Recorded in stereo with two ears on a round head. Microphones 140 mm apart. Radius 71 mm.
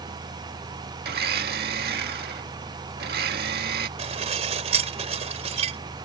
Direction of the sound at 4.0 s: 40° right (ahead or behind).